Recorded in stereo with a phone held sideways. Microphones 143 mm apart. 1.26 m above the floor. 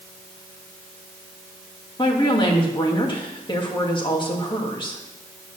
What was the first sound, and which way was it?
A woman speaking, 35° left (ahead or behind).